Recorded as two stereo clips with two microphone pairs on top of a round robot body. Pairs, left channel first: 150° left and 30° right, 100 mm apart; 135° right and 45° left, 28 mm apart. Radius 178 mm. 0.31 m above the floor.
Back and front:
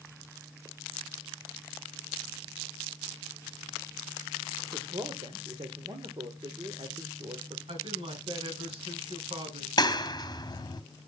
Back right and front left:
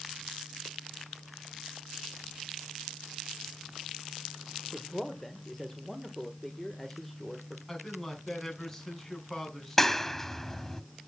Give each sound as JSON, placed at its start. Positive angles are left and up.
{"t": 4.7, "sound": "a man speaking", "azimuth_deg": -55, "distance_m": 1.8}
{"t": 7.7, "sound": "a man speaking", "azimuth_deg": -55, "distance_m": 5.5}
{"t": 9.8, "sound": "a clap", "azimuth_deg": 145, "distance_m": 1.2}